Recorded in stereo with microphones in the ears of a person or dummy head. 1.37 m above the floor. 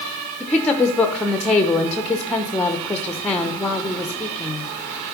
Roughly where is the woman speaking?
Centre.